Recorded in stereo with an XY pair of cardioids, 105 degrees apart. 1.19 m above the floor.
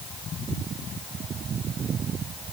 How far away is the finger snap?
I don't hear a finger snap.